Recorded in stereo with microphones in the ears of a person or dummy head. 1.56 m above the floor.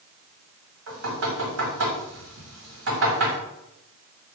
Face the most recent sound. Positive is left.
turn(degrees=-75)  # may be behind; listen again after turning